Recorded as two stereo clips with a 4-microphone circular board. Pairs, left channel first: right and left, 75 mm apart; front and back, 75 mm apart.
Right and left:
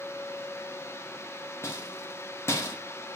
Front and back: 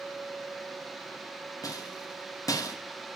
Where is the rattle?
35° right, 1.4 m.